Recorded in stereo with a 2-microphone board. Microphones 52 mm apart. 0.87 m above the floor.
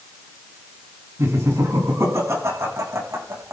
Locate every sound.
1.2 s laughter: 85° right, 8 m